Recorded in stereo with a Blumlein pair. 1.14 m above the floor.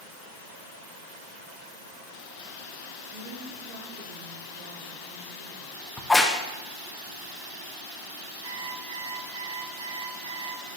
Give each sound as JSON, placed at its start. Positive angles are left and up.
{"t": 3.1, "sound": "a woman speaking", "azimuth_deg": -60, "distance_m": 2.5}
{"t": 6.0, "sound": "a crack", "azimuth_deg": 5, "distance_m": 0.8}
{"t": 8.4, "sound": "an alarm clock", "azimuth_deg": -70, "distance_m": 3.5}